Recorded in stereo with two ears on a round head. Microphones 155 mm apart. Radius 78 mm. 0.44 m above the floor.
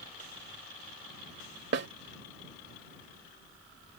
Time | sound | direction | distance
1.7 | a snare drum | 65° right (ahead or behind) | ?